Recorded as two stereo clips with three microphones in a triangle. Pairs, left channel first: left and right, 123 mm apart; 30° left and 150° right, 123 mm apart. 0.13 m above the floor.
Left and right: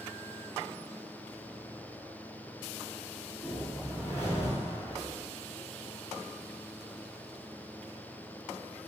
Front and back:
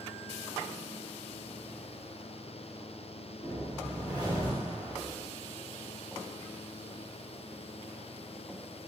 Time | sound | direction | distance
3.4 | a whoosh | 30° left | 1.6 m